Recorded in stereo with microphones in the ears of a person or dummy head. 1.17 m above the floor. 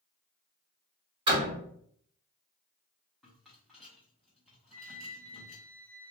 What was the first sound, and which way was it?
A door slam, 25° right (ahead or behind).